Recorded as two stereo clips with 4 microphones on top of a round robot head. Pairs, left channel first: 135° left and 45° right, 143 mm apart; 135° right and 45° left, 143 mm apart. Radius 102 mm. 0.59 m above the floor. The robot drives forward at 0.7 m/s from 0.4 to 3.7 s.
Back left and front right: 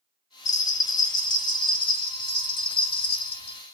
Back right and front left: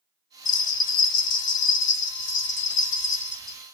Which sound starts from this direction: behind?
A bell, at 0.5 s.